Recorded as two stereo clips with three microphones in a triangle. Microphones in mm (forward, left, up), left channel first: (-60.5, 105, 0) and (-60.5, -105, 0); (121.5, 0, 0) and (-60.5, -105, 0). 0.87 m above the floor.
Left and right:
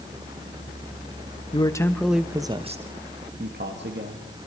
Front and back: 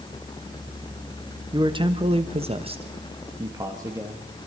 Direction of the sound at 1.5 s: 150° left.